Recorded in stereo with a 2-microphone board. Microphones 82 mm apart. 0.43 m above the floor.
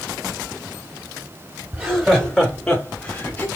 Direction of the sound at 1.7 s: 10° right (ahead or behind).